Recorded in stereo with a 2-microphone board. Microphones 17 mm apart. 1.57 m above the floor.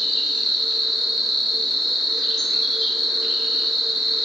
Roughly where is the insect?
Left.